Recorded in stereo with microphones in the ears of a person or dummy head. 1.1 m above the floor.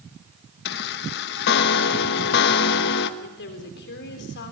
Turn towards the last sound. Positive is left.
turn(degrees=55)  # may be behind; listen again after turning